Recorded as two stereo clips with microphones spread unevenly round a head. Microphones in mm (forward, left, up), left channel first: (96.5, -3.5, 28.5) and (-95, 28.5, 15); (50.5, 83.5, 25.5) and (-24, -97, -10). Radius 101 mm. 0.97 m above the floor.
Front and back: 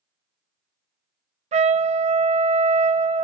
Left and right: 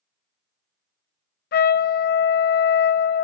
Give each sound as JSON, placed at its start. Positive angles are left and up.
{"t": 1.5, "sound": "a trumpet", "azimuth_deg": 115, "distance_m": 0.6}